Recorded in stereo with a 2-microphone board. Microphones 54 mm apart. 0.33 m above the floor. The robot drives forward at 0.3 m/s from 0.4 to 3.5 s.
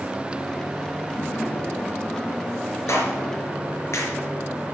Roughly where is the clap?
Left.